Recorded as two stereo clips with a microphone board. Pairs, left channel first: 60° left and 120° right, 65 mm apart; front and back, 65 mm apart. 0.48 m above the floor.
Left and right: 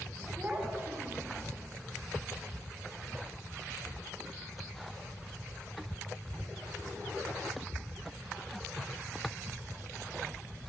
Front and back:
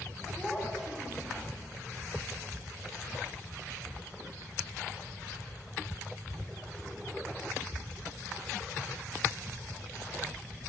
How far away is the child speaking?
About 1.0 m.